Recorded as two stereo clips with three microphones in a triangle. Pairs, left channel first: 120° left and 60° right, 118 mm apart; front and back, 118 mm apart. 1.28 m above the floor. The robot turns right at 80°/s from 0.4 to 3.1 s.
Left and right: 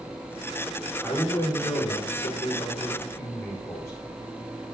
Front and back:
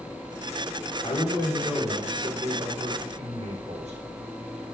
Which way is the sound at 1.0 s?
35° left.